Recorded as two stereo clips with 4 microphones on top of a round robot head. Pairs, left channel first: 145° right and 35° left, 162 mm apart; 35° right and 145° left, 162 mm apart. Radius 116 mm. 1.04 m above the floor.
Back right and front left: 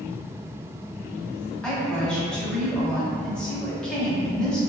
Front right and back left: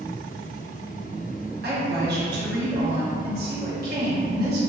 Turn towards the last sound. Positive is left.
turn(degrees=130)